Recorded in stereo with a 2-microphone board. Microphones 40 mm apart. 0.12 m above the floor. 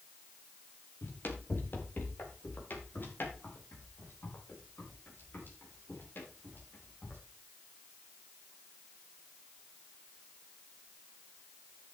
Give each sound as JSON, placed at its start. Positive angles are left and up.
{"t": 1.0, "sound": "running footsteps", "side_deg": 50, "distance_m": 3.0}